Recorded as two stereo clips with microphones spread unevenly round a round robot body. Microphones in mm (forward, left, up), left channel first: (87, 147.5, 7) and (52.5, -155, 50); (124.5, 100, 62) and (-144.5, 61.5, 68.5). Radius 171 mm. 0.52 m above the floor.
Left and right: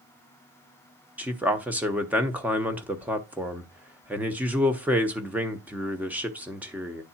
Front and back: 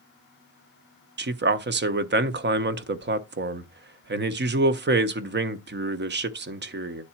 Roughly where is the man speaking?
Behind.